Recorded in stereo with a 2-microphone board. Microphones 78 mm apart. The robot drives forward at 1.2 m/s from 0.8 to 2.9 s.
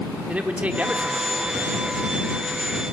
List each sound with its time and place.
0.3 s a man speaking: 20° right (ahead or behind), 1.1 m; by 2.1 s 10° right (ahead or behind), 2 m